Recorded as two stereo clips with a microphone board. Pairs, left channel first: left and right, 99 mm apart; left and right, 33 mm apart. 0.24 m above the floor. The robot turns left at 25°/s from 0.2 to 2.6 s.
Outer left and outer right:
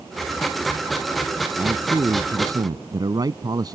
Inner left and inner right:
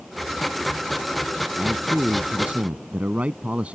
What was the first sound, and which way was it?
A man speaking, 25° right (ahead or behind).